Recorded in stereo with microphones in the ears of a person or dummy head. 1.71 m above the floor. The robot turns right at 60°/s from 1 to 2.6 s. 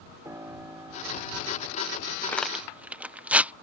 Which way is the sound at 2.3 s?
15° left (ahead or behind).